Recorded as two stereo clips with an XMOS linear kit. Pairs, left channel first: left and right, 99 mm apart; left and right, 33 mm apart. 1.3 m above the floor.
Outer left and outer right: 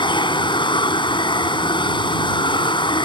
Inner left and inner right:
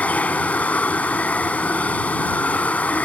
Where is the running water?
55° left (ahead or behind).